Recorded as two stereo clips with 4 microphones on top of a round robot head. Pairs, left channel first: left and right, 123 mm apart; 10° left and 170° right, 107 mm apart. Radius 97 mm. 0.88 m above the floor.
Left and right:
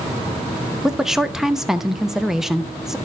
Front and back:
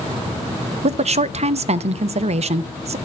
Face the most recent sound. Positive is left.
turn(degrees=180)